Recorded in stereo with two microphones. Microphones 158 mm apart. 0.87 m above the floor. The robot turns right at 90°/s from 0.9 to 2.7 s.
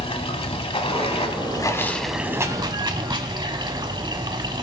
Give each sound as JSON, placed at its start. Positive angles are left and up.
{"t": 0.0, "sound": "running water", "azimuth_deg": 75, "distance_m": 0.8}